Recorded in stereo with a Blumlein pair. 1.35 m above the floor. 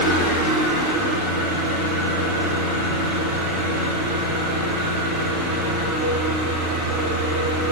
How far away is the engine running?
About 3.5 m.